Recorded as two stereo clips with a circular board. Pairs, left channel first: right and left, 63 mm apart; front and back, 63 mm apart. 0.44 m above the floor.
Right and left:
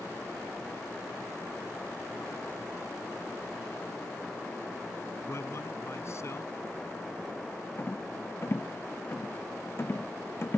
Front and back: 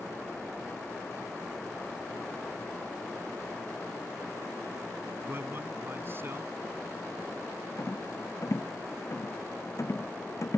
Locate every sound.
5.3 s a man speaking: 130° right
7.8 s a rattle: 40° right